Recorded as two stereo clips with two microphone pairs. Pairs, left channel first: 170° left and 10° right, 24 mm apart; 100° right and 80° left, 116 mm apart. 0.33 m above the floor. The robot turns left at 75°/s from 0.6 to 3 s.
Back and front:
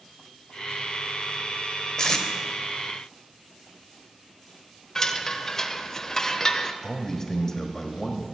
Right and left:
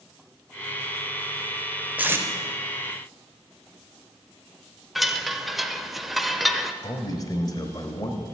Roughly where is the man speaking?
Behind right.